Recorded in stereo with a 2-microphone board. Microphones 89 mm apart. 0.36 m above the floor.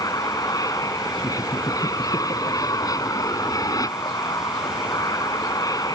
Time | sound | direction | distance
0.0 | an aircraft | 40° left (ahead or behind) | ?
1.2 | laughter | 70° left (ahead or behind) | ?